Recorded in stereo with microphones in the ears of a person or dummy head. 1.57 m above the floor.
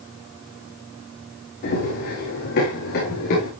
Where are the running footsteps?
45° left (ahead or behind), 5.5 m; by 3.5 s 50° left (ahead or behind), 7.5 m.